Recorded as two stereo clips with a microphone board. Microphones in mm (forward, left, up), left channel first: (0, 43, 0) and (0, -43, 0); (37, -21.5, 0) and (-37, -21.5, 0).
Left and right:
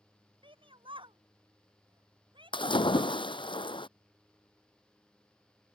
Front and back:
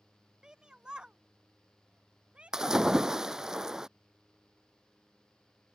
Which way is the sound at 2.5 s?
100° left.